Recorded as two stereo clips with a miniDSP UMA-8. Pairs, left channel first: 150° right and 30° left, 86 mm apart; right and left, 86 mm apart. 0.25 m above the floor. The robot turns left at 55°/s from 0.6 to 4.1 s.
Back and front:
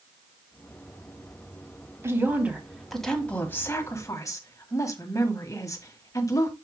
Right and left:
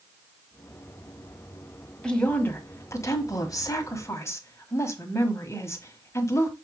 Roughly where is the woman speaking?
Ahead.